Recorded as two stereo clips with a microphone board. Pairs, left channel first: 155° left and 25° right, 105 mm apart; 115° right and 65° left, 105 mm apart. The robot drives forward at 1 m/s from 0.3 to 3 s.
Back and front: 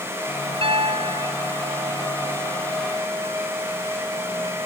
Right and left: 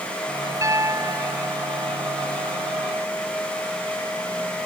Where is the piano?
5° left; by 2.0 s 10° left.